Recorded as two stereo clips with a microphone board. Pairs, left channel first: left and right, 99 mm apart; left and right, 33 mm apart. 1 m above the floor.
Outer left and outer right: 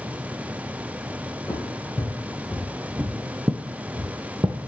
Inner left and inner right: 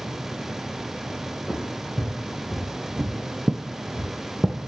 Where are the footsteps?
20° left (ahead or behind), 3 m; by 4.6 s 40° right (ahead or behind), 1.7 m.